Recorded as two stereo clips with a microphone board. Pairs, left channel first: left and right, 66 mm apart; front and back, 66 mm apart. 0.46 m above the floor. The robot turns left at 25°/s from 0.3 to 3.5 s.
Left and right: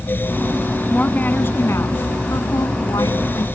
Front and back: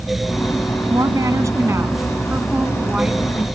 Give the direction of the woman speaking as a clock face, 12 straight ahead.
7 o'clock.